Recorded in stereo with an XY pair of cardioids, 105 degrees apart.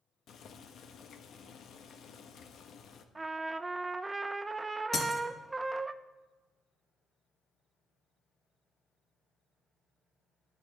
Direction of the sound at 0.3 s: 60° left.